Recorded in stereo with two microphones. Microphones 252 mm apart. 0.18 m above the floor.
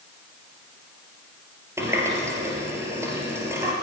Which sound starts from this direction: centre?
A running tap, at 1.8 s.